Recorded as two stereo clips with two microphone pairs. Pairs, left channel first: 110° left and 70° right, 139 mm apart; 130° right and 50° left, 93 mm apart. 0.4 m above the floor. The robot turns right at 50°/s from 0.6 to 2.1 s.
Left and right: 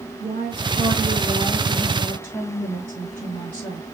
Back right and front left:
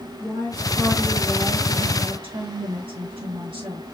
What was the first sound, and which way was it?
A woman speaking, 40° right.